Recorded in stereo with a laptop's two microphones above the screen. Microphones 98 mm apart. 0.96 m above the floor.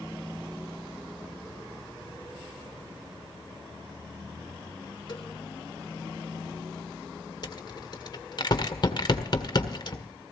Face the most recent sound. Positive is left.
turn(degrees=50)  # may be behind; listen again after turning